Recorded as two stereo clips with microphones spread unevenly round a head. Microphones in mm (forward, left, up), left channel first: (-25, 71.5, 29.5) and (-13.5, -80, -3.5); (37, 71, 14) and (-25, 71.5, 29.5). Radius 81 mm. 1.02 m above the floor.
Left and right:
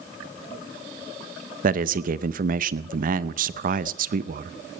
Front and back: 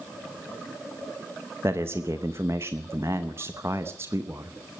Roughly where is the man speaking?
Right.